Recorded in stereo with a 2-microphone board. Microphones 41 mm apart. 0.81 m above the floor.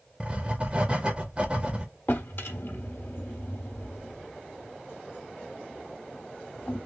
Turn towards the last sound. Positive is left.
turn(degrees=60)  # may be behind; listen again after turning